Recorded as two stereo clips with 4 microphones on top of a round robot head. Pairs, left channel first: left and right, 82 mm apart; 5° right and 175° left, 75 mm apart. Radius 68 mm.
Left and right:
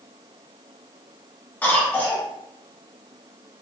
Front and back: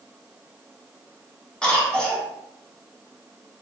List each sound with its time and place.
1.6 s a cough: 55° left, 1.0 m